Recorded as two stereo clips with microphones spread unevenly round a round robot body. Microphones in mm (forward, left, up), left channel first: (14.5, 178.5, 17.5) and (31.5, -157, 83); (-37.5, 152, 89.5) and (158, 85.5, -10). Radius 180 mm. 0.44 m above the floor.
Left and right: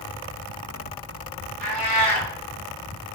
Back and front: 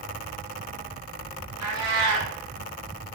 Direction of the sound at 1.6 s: 25° right.